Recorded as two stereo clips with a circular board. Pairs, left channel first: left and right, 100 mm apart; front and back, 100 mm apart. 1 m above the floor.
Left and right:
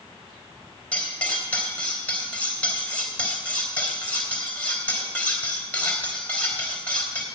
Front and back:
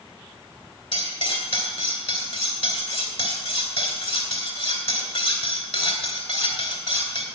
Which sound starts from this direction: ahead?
Cutlery clinking, at 0.9 s.